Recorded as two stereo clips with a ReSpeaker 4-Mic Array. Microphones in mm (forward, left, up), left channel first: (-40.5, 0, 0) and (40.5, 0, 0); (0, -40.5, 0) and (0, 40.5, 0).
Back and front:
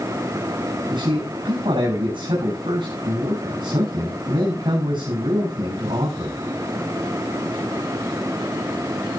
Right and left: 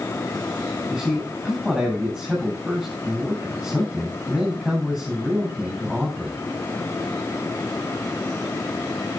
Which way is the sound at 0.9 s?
10° left.